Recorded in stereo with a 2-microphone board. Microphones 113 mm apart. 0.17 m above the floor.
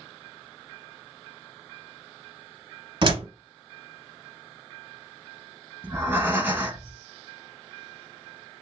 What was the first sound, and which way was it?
A door slam, 45° right (ahead or behind).